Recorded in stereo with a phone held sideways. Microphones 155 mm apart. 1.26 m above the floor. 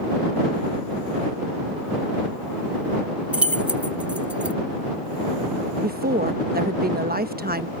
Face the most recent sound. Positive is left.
turn(degrees=-80)